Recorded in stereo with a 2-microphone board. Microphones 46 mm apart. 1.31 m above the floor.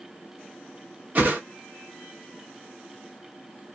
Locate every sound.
1.1 s a whoosh: 40° right (ahead or behind), 1.0 m